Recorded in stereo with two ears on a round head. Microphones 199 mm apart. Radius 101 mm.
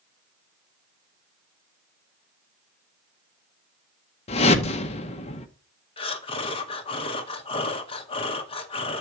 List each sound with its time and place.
4.3 s a whoosh: 25° left (ahead or behind), 0.7 m
6.0 s breathing: 25° left (ahead or behind), 0.8 m